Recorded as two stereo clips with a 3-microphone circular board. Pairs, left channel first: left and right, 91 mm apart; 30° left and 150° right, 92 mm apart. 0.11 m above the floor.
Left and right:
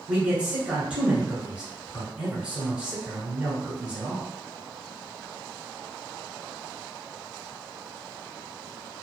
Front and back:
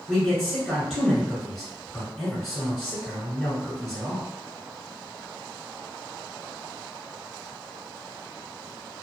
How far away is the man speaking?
About 1.3 m.